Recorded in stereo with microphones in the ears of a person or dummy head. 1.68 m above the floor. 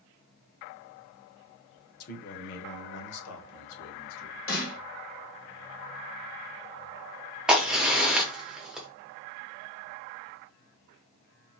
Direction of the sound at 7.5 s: 5° right (ahead or behind).